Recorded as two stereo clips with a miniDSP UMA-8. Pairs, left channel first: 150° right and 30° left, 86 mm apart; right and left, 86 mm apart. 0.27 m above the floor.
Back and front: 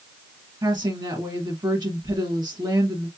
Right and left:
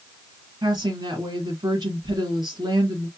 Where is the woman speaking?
60° left, 2 m.